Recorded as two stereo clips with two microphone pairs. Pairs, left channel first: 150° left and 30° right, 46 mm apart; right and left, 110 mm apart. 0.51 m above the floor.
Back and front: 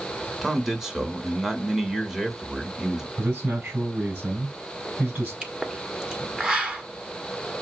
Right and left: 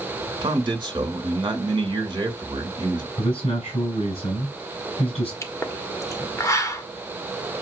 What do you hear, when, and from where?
0.4 s a man speaking: 50° left, 1.7 m
3.2 s a man speaking: 80° right, 3 m
5.4 s a pop: 75° right, 1.4 m